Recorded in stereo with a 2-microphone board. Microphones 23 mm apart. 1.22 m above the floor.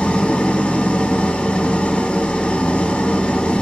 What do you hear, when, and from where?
0.0 s an engine running: 60° left (ahead or behind), 2 m